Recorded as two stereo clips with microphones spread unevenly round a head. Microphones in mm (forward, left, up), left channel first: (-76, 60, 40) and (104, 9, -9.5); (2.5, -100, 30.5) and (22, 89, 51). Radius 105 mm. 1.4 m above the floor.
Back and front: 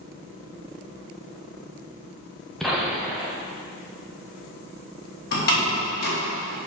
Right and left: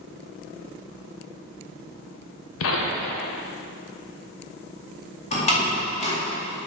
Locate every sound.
2.6 s a gunshot: 110° right, 0.9 m
5.3 s a door slam: 155° right, 2 m